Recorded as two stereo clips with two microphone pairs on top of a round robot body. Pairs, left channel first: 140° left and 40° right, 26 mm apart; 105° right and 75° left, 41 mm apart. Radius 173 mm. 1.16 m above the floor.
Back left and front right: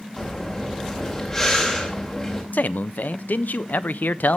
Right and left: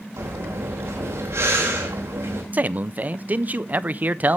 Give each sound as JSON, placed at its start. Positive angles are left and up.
{"t": 0.2, "sound": "breathing", "azimuth_deg": 70, "distance_m": 2.5}
{"t": 2.5, "sound": "a man speaking", "azimuth_deg": 130, "distance_m": 0.7}